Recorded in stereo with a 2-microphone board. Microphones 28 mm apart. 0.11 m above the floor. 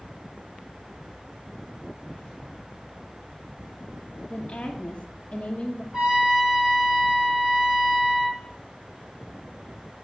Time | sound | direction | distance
4.3 | a woman speaking | 25° left (ahead or behind) | 1.2 m
5.9 | a trumpet | 10° right (ahead or behind) | 4 m